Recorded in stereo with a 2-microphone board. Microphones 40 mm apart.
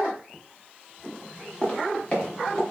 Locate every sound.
1.6 s footsteps: 35° left (ahead or behind), 3.5 m; by 2.6 s 30° left (ahead or behind), 4 m